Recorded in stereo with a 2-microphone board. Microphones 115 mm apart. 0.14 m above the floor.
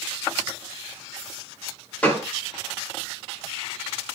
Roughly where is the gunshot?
Centre.